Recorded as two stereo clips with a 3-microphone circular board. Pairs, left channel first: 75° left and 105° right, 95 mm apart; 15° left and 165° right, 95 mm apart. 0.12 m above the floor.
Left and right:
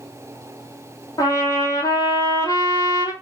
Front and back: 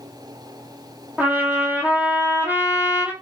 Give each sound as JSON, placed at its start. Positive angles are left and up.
{"t": 1.2, "sound": "a trumpet", "azimuth_deg": 125, "distance_m": 1.5}